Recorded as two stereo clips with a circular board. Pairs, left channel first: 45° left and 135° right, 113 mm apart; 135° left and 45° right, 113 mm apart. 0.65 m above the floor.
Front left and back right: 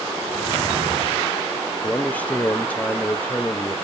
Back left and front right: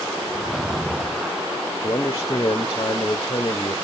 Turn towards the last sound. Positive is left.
turn(degrees=115)